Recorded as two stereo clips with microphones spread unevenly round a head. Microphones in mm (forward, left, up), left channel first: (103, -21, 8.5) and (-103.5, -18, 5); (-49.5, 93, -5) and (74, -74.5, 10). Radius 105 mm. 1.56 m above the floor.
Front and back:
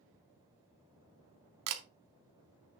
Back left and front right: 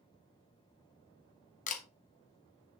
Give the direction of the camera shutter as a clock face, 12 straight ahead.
6 o'clock.